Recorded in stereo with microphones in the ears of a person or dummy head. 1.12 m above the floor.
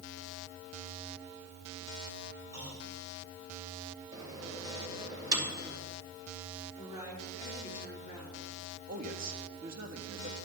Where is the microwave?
20° right (ahead or behind), 2.5 m.